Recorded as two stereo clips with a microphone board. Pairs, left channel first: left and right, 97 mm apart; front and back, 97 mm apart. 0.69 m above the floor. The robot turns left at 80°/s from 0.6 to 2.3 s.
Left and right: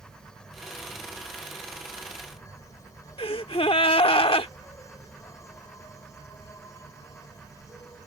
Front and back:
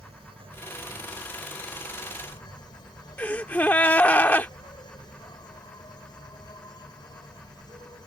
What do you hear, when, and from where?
0.0 s an insect: 175° left; by 8.1 s 35° left
3.2 s a gasp: 70° left